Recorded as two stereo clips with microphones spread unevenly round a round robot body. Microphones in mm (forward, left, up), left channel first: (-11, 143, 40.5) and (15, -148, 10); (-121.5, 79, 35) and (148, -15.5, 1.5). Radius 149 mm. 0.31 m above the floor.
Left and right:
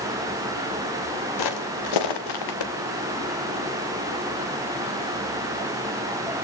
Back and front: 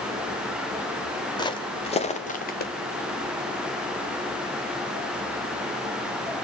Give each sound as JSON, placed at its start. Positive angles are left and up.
{"t": 1.4, "sound": "footsteps", "azimuth_deg": 85, "distance_m": 4.0}